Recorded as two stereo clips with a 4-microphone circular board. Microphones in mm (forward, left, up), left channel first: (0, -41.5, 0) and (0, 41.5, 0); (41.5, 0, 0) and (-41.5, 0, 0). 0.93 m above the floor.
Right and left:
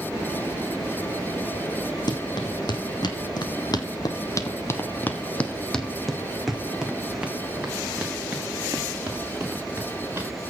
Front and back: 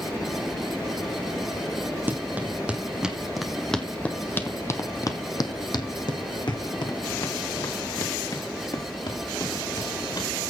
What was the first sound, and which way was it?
Running footsteps, 115° right.